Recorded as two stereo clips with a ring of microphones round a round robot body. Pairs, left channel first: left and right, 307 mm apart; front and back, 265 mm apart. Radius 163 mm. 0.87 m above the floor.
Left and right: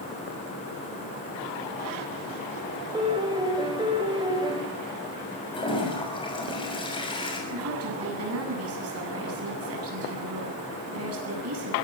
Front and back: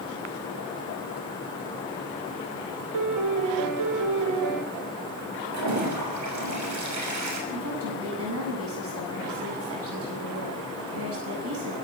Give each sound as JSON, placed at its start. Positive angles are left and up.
{"t": 2.9, "sound": "a piano", "azimuth_deg": -165, "distance_m": 3.0}
{"t": 5.5, "sound": "a toilet flushing", "azimuth_deg": 165, "distance_m": 6.5}
{"t": 7.5, "sound": "a woman speaking", "azimuth_deg": -135, "distance_m": 8.5}